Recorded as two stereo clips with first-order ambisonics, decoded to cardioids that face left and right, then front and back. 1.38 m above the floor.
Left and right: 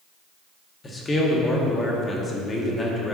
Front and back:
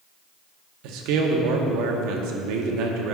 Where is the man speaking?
160° left, 1.0 m.